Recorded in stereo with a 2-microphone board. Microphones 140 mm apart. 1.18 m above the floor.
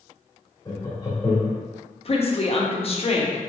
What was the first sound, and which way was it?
Laughter, 25° left (ahead or behind).